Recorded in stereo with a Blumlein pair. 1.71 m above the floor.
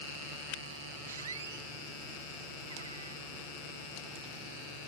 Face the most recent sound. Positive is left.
turn(degrees=-70)